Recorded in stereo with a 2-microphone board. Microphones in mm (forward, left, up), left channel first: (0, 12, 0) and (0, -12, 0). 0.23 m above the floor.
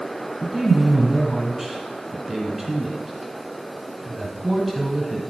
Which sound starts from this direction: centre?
A man speaking, at 0.4 s.